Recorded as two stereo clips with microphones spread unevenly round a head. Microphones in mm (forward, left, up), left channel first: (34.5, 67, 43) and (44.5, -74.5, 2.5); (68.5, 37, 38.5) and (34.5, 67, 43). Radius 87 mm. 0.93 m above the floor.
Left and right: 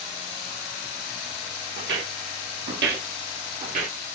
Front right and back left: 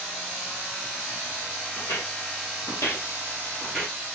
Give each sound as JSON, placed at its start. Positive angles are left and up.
{"t": 1.8, "sound": "footsteps", "azimuth_deg": -90, "distance_m": 1.5}